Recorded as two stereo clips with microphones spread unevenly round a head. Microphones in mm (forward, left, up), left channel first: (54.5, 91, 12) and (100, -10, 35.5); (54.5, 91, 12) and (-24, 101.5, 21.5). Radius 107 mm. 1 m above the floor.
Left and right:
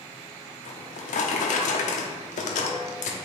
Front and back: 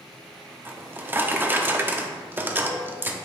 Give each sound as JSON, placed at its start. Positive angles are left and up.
{"t": 0.7, "sound": "a drawer", "azimuth_deg": 110, "distance_m": 0.8}